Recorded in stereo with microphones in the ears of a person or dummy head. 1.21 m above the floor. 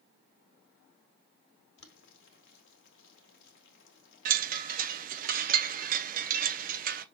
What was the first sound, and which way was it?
Boiling, 65° left (ahead or behind).